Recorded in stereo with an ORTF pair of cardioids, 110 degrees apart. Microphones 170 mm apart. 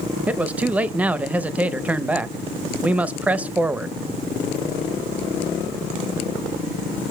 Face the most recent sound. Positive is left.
turn(degrees=-10)